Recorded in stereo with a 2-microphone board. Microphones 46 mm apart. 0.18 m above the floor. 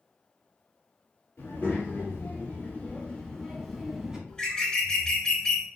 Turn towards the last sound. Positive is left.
turn(degrees=20)  # may be behind; listen again after turning